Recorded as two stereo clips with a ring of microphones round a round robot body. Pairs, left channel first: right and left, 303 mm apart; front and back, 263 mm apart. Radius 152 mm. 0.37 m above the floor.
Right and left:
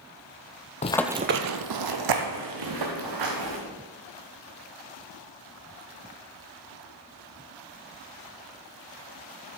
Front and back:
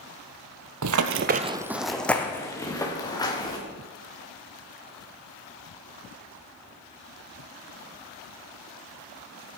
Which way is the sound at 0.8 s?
155° right.